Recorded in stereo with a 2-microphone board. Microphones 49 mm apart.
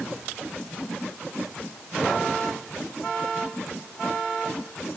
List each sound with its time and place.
Only background noise.